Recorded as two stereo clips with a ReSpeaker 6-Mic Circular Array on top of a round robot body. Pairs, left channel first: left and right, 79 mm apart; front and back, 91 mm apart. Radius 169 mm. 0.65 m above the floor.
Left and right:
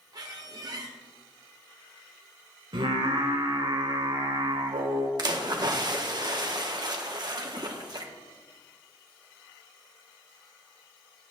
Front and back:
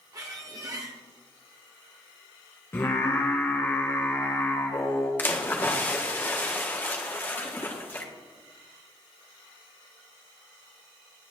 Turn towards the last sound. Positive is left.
turn(degrees=-65)